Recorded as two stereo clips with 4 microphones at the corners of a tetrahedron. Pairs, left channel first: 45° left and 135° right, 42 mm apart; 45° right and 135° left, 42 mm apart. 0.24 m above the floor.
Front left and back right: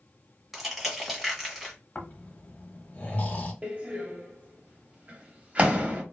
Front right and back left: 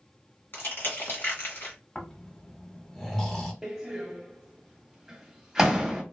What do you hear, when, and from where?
0.5 s crushing: 45° right, 1.4 m
1.9 s snoring: 20° left, 0.9 m
3.6 s a door slam: 155° right, 0.8 m